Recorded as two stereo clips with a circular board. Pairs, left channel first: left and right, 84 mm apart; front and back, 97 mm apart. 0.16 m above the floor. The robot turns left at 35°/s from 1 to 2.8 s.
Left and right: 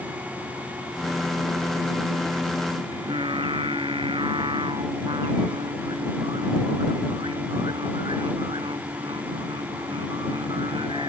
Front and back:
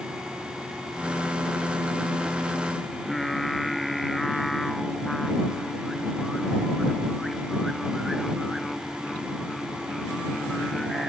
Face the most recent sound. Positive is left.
turn(degrees=-90)